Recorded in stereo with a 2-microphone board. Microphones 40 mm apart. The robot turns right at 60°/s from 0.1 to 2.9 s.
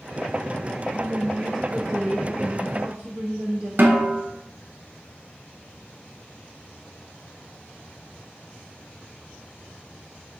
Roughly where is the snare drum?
Right.